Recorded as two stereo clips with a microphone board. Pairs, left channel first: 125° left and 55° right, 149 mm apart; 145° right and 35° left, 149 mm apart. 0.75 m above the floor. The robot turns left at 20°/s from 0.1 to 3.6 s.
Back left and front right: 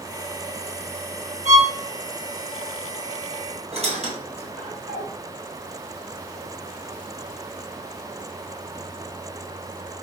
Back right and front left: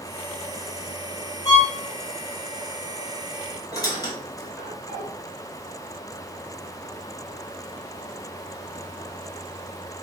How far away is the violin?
About 1.6 m.